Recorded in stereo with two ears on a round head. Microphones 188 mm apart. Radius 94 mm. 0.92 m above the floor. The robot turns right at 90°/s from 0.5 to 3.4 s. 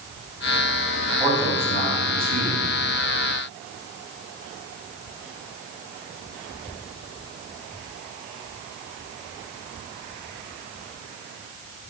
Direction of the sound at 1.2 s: 170° left.